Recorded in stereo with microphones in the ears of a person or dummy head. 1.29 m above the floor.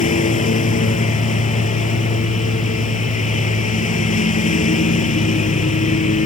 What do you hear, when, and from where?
0.0 s a lawn mower: 40° left (ahead or behind)